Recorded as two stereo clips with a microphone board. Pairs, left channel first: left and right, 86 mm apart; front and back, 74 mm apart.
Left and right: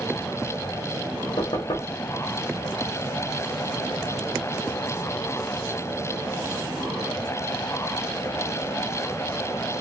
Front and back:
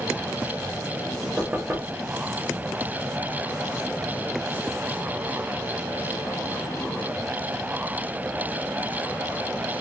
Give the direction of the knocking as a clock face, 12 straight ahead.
8 o'clock.